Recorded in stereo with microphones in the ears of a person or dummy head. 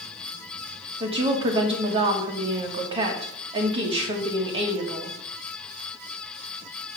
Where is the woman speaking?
35° right (ahead or behind), 1.4 m.